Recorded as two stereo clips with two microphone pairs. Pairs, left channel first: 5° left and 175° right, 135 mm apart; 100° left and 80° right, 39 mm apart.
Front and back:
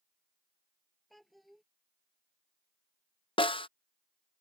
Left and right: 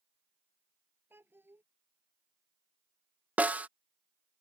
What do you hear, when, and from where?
1.1 s a child speaking: 80° right
3.4 s a snare drum: 40° right